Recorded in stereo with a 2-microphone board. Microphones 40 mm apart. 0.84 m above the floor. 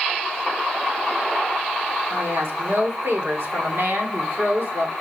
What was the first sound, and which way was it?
A woman speaking, 75° right (ahead or behind).